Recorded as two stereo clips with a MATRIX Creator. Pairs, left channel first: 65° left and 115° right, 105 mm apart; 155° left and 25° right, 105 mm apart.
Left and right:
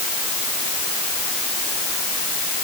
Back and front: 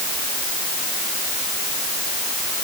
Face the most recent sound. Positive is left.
No sound to turn to.